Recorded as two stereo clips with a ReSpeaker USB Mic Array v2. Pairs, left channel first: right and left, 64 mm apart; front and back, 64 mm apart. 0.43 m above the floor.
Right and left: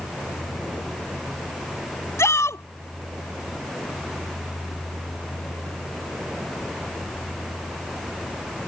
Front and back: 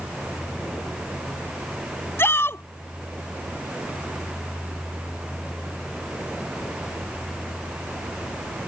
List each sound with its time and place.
2.2 s a shout: 50° right